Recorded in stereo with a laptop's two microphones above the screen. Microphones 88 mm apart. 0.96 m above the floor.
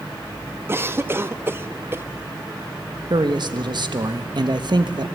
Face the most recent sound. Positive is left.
turn(degrees=-55)  # may be behind; listen again after turning